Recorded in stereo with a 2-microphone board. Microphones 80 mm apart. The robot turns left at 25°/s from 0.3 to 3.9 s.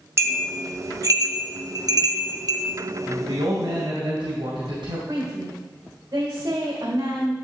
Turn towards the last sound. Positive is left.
turn(degrees=-65)  # may be behind; listen again after turning